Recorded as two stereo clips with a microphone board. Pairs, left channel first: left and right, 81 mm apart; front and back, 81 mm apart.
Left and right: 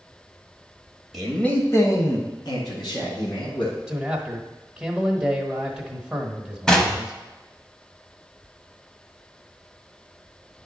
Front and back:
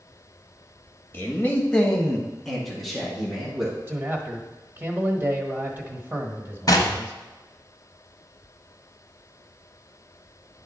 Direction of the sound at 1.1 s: 5° right.